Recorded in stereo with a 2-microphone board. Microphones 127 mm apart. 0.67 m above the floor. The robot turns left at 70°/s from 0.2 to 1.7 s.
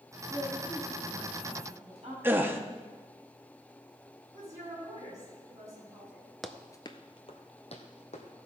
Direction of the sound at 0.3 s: 60° left.